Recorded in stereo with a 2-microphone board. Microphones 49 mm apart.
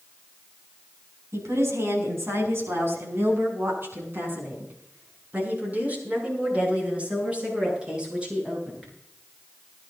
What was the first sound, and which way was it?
A woman speaking, 70° right (ahead or behind).